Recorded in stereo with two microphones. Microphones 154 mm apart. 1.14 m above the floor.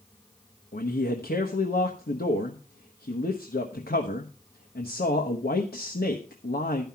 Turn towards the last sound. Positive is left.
turn(degrees=85)